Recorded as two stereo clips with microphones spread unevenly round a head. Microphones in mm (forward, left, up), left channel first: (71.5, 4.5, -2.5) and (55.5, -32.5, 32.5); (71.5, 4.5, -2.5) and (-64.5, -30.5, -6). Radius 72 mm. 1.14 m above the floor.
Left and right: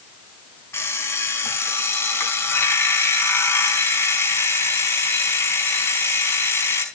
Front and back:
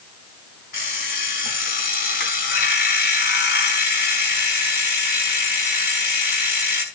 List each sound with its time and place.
0.7 s an alarm clock: 40° left, 4.5 m